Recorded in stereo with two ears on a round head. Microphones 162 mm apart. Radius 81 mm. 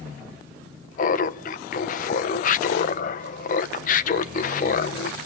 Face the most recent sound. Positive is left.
turn(degrees=45)  # may be behind; listen again after turning